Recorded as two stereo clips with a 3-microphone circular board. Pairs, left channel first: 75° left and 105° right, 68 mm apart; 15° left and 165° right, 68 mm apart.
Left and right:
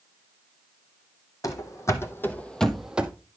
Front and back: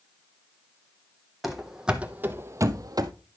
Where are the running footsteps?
105° left, 1.3 m; by 3.1 s 175° right, 0.8 m.